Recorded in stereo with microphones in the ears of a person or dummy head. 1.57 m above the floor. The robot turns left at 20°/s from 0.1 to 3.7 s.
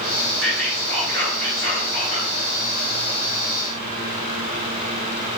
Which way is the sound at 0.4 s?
170° left.